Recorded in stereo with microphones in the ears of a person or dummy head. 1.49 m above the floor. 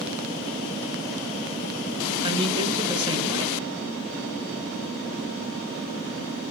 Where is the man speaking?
25° right (ahead or behind), 0.8 m.